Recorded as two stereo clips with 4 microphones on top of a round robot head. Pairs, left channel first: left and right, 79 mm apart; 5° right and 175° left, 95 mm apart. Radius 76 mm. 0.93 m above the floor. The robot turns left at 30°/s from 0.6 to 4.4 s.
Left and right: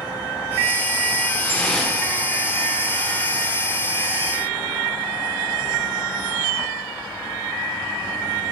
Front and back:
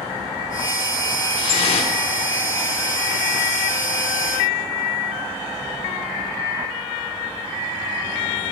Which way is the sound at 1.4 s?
20° left.